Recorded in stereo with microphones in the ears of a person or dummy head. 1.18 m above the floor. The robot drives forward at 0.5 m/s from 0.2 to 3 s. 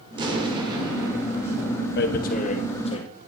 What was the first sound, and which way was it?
An explosion, 25° right (ahead or behind).